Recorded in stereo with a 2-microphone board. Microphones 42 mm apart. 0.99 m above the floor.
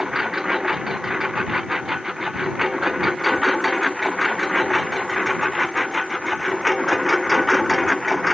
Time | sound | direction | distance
0.0 | a lawn mower | 10° right (ahead or behind) | ?